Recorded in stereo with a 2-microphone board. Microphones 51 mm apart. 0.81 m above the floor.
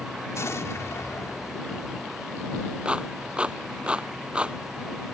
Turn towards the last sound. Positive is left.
turn(degrees=-20)  # may be behind; listen again after turning